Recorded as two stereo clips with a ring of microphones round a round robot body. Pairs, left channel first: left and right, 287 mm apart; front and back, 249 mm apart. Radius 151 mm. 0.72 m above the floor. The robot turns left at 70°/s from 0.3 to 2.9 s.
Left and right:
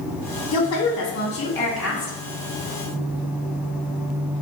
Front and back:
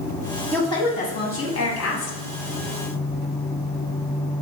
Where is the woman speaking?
85° left, 0.9 m; by 2.2 s 30° right, 0.9 m.